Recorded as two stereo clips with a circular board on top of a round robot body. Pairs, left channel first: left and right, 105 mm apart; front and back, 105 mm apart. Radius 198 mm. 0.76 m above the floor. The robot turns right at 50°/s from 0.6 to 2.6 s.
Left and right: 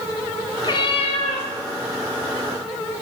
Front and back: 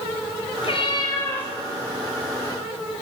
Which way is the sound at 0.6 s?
35° left.